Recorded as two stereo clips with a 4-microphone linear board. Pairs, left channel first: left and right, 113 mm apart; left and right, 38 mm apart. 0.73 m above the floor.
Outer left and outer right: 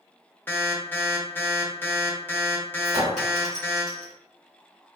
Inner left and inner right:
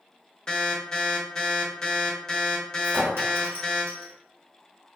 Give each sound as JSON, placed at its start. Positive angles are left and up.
{"t": 0.5, "sound": "an alarm", "side_deg": 20, "distance_m": 0.7}
{"t": 2.8, "sound": "a clink", "side_deg": -85, "distance_m": 1.7}